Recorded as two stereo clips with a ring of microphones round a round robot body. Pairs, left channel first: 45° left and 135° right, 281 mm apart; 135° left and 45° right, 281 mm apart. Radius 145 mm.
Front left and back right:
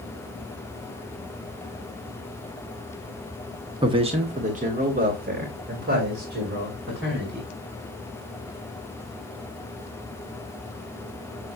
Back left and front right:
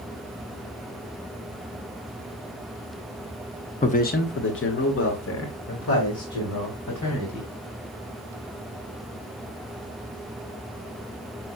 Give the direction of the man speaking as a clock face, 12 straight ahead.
6 o'clock.